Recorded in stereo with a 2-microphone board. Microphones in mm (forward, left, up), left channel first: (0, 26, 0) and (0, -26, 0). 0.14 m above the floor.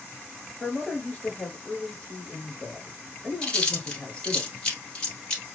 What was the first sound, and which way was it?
A man speaking, 20° left (ahead or behind).